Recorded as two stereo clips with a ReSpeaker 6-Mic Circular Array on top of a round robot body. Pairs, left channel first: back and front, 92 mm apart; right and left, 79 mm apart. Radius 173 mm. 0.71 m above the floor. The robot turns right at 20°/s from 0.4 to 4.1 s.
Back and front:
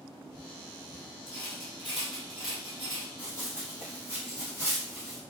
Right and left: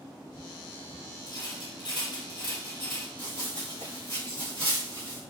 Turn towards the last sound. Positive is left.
turn(degrees=-90)